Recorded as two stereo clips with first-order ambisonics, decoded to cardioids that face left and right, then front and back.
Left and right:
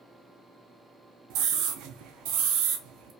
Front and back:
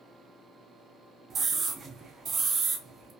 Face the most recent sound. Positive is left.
turn(degrees=-115)